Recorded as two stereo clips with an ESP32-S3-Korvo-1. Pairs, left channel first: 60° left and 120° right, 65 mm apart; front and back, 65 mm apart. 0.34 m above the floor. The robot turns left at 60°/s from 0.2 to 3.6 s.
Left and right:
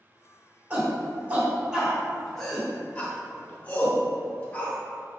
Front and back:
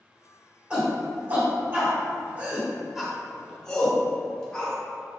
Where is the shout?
125° right, 1.0 m; by 4.8 s 60° left, 1.0 m.